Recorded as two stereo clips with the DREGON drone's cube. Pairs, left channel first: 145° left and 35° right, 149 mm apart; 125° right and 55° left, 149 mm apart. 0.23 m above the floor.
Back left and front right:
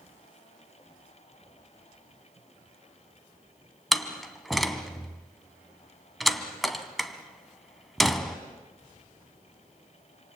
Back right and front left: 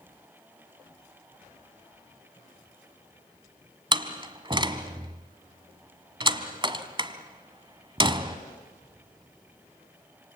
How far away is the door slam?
About 1.3 m.